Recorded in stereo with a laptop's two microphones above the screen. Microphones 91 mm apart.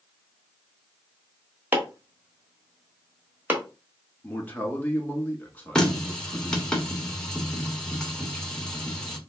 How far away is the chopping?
About 1.3 m.